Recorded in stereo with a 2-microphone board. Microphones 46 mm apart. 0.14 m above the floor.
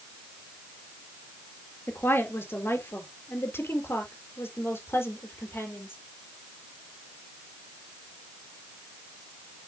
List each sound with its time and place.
1.9 s a woman speaking: 55° left (ahead or behind), 2.5 m; by 6.0 s 60° left (ahead or behind), 4 m